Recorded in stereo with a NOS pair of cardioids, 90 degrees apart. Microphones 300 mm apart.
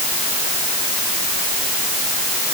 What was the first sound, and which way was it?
Only background noise.